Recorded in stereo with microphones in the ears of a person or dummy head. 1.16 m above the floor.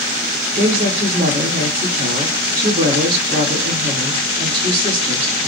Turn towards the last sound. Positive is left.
turn(degrees=-55)  # may be behind; listen again after turning